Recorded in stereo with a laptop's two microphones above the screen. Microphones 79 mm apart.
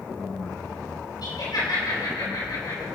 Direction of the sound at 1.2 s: 65° left (ahead or behind).